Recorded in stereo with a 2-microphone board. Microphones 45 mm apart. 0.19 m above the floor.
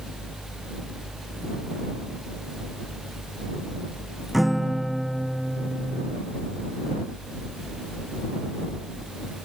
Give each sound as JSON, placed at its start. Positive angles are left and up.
{"t": 4.3, "sound": "a guitar", "side_deg": -5}